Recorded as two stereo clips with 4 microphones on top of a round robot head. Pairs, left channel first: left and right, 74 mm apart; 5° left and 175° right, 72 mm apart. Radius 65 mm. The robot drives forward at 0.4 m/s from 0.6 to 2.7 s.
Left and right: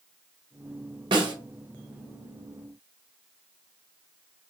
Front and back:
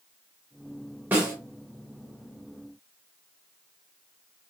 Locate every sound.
1.1 s a snare drum: 110° right, 0.8 m; by 1.3 s 115° right, 0.9 m